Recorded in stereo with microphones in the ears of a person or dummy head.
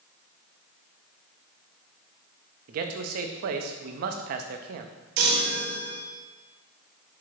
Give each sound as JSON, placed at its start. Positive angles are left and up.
{"t": 2.7, "sound": "a man speaking", "side_deg": -55, "distance_m": 0.7}
{"t": 5.2, "sound": "a chime", "side_deg": -60, "distance_m": 0.8}